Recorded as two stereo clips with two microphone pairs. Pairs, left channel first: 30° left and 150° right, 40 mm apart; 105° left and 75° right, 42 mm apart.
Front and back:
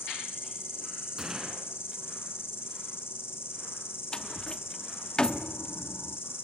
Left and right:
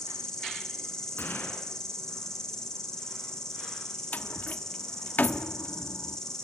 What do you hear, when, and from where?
0.0 s an insect: 30° left, 5 m
1.2 s a gunshot: 135° left, 5 m
4.1 s a door slam: 90° left, 0.8 m